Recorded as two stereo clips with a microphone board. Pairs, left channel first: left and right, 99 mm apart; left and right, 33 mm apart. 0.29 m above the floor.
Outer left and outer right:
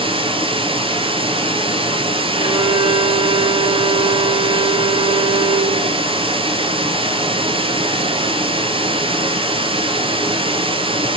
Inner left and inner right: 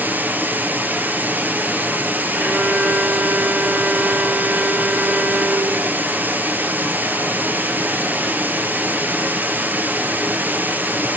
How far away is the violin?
About 3 m.